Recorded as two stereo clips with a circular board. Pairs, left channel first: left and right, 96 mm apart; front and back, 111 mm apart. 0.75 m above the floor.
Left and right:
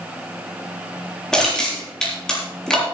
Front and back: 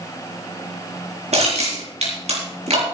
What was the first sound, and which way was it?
Crushing, 170° left.